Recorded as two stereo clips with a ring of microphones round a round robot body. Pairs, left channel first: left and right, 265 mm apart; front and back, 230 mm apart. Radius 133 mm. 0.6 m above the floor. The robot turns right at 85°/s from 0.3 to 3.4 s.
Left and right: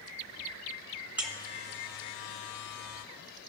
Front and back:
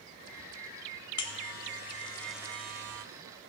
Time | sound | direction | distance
1.2 | a buzzer | 5° right | 1.5 m